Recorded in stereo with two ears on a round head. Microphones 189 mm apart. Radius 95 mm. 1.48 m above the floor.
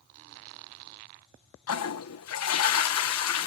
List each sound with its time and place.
1.7 s a toilet flushing: 85° left